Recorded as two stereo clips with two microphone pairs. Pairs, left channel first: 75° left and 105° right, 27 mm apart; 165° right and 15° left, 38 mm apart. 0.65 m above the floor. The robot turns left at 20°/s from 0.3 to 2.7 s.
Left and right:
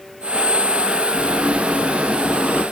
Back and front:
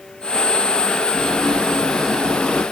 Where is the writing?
90° right, 3 m; by 2.6 s 120° right, 3 m.